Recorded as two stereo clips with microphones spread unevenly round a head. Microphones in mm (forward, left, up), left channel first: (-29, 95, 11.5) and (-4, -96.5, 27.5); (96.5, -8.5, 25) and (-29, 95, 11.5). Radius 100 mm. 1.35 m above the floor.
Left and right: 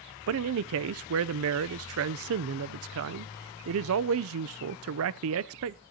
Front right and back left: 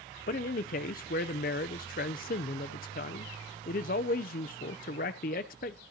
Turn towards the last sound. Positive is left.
turn(degrees=-85)